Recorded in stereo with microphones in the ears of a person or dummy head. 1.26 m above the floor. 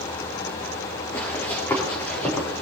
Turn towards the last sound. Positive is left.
turn(degrees=5)  # may be behind; listen again after turning